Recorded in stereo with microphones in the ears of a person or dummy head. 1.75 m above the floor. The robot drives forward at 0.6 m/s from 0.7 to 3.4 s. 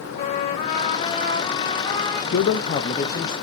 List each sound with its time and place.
0.1 s a trumpet: 30° left (ahead or behind), 1.0 m; by 2.2 s 15° left (ahead or behind), 1.8 m
2.3 s a man speaking: 55° left (ahead or behind), 0.5 m; by 3.3 s 25° left (ahead or behind), 1.0 m